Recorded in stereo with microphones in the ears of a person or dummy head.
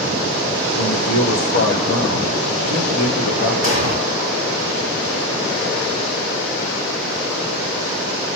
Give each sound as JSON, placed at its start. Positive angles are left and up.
{"t": 0.8, "sound": "a man speaking", "side_deg": 45, "distance_m": 1.4}
{"t": 3.6, "sound": "an explosion", "side_deg": 40, "distance_m": 2.0}